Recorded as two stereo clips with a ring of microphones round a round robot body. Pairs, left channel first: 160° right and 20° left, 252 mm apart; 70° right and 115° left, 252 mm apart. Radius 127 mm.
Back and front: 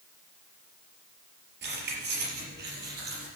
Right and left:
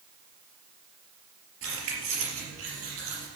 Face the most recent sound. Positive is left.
turn(degrees=75)